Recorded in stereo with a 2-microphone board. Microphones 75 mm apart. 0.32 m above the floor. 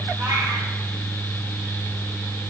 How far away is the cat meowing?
About 8 m.